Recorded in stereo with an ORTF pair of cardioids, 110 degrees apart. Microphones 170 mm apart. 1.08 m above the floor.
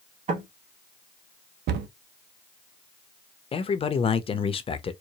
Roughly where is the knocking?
Ahead right.